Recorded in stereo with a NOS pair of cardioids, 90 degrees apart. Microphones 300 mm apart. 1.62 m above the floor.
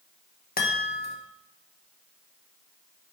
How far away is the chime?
About 1.4 m.